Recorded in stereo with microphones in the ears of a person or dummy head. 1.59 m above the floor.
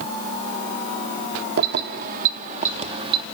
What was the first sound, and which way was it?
Keys jangling, 60° right (ahead or behind).